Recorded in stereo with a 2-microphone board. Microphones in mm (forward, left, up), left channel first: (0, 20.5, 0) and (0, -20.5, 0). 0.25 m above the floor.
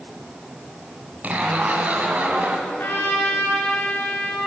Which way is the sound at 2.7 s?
60° left (ahead or behind).